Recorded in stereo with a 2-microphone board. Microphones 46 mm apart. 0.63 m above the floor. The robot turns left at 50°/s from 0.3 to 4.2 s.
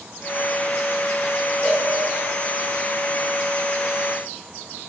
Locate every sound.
1.6 s a cowbell: 55° left (ahead or behind), 1.9 m; by 1.9 s 65° left (ahead or behind), 1.9 m